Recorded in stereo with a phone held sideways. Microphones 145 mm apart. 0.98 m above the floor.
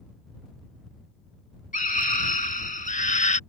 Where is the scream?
75° left (ahead or behind); by 3.4 s 60° left (ahead or behind).